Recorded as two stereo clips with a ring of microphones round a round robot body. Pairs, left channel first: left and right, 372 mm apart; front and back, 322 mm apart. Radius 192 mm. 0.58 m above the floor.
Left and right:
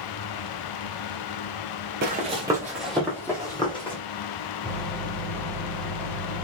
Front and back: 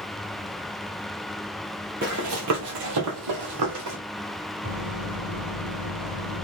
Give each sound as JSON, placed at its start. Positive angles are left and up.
{"t": 2.0, "sound": "running footsteps", "azimuth_deg": -135, "distance_m": 0.6}
{"t": 4.6, "sound": "a microwave", "azimuth_deg": 175, "distance_m": 1.3}